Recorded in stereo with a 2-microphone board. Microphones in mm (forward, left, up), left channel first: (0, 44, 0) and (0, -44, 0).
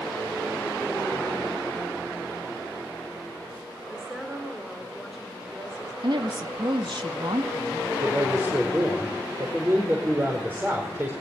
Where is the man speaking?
25° right (ahead or behind), 4.5 m.